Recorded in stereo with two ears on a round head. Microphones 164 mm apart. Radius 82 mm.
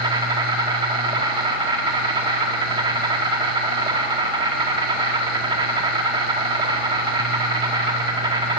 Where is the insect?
25° right (ahead or behind), 1.5 m.